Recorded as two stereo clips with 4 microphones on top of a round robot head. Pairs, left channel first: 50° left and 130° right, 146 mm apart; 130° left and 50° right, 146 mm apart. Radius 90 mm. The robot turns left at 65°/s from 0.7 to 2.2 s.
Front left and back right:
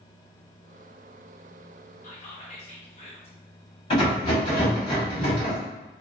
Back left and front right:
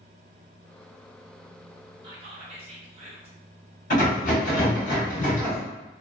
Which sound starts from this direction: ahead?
Whispering, at 2.0 s.